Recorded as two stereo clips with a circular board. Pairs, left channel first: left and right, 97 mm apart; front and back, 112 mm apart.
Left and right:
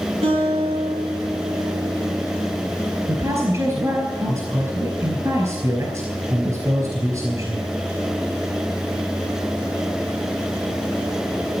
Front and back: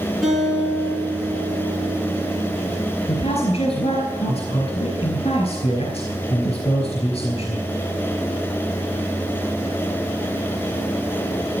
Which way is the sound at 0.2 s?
90° right.